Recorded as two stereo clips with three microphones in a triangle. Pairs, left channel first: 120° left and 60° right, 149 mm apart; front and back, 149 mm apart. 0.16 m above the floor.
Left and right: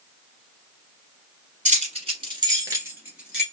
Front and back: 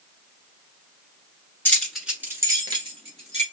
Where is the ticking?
I don't hear ticking.